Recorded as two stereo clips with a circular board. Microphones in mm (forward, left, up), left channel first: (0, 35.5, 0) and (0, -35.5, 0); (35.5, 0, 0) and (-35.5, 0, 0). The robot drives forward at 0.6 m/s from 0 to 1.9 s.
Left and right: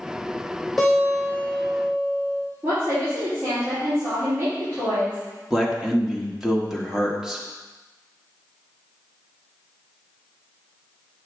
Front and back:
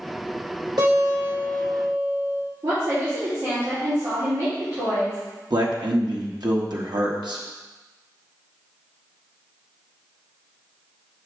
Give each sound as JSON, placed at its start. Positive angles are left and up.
{"t": 0.8, "sound": "a guitar", "azimuth_deg": 175, "distance_m": 3.5}
{"t": 2.6, "sound": "a woman speaking", "azimuth_deg": -150, "distance_m": 3.5}
{"t": 5.5, "sound": "a man speaking", "azimuth_deg": -175, "distance_m": 1.2}